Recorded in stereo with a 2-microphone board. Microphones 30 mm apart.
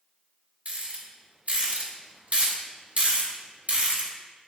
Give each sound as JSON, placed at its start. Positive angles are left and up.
{"t": 0.7, "sound": "a rattle", "side_deg": -55, "distance_m": 1.6}